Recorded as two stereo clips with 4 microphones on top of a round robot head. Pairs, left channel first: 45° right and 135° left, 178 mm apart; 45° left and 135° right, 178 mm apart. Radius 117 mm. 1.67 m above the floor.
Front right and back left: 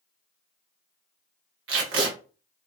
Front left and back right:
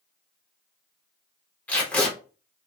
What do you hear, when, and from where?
1.7 s tape being pulled: 130° left, 0.9 m